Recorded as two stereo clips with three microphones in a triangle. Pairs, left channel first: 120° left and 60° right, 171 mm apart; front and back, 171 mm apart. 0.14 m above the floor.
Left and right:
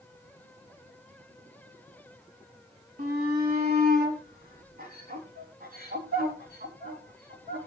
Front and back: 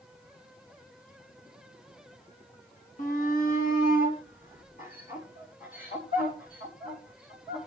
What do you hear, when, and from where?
3.0 s a shout: 35° right, 4 m